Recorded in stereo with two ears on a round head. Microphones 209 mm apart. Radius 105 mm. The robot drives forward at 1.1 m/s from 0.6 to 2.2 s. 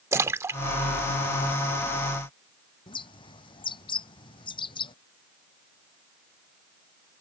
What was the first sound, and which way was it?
A splash, 10° right (ahead or behind).